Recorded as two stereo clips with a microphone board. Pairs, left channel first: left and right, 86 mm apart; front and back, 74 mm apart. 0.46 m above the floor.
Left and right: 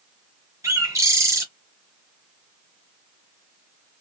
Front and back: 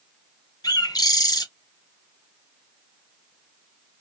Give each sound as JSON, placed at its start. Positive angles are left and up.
{"t": 0.6, "sound": "a bird", "azimuth_deg": -35, "distance_m": 0.7}